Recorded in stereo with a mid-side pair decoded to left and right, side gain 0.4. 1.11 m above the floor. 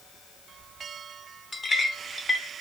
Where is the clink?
25° left, 1.4 m.